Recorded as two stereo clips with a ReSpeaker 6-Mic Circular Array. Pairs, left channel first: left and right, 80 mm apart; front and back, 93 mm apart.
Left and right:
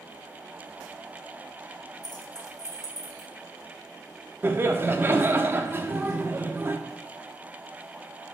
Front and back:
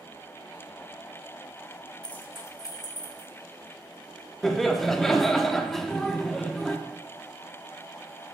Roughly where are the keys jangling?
Left.